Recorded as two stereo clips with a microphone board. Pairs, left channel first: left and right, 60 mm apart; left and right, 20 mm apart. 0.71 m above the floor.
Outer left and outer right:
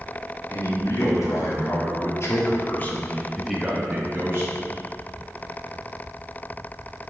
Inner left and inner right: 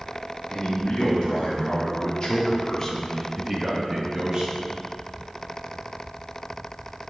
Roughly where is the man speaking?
Left.